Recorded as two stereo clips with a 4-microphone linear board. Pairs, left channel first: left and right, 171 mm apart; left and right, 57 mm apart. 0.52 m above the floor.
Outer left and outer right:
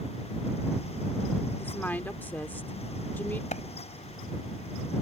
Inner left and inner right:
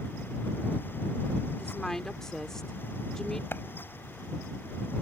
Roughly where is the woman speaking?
Centre.